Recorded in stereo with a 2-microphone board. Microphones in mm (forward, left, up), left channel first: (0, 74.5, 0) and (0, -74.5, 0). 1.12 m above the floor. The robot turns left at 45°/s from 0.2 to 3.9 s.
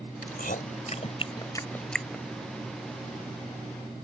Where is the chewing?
80° left; by 2.2 s 10° right (ahead or behind).